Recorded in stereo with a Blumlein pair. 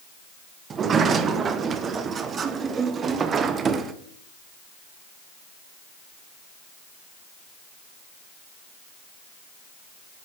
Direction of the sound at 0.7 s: 20° right.